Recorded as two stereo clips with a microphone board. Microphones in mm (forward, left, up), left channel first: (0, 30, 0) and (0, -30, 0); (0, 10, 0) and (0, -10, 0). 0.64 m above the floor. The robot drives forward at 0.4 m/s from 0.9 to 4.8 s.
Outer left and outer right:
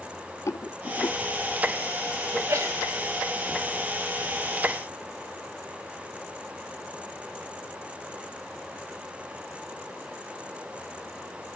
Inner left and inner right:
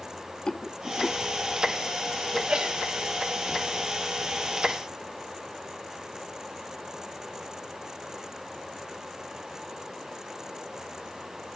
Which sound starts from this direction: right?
A sneeze, at 2.3 s.